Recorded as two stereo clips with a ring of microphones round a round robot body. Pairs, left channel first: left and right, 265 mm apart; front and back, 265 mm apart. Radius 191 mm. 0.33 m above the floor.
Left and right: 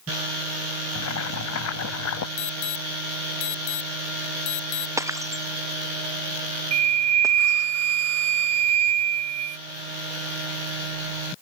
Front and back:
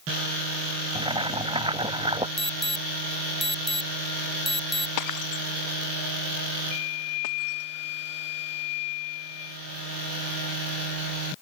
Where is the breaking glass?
10° right.